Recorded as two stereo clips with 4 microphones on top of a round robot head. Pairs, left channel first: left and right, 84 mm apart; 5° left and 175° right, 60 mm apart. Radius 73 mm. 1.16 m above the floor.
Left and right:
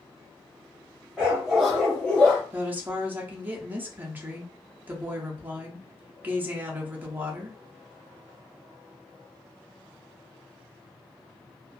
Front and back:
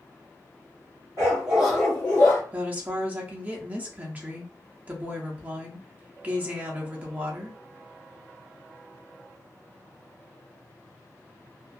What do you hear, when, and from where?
1.2 s a dog barking: 170° right, 0.6 m; by 2.4 s 20° left, 0.7 m
2.5 s a woman speaking: 140° right, 0.7 m